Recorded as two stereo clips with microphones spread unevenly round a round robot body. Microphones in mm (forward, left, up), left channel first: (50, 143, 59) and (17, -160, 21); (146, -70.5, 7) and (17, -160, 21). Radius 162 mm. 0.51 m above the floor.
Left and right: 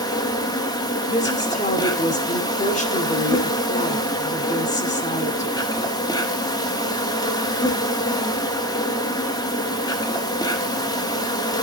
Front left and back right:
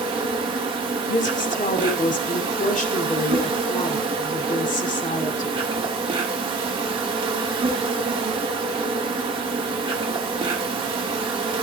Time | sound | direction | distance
0.0 | an insect | 165° left | 1.3 m
1.1 | a woman speaking | 15° left | 2.5 m